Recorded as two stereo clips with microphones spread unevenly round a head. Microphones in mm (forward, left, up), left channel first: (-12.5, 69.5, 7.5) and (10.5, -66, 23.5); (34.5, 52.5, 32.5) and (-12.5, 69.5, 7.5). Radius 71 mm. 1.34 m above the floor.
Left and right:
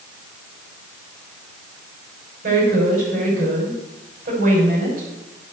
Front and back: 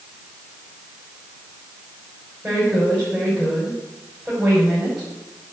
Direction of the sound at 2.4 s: 110° right.